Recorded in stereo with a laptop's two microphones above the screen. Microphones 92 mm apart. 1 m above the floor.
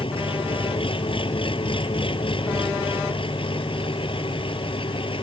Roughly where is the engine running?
Left.